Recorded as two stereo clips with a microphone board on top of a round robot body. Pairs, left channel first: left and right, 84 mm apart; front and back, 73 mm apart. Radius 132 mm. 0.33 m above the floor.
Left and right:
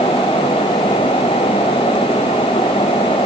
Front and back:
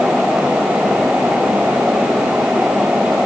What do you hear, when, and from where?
Only background noise.